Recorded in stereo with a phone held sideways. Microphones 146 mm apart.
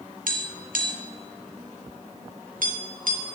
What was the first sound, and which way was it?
Tapping, 80° right.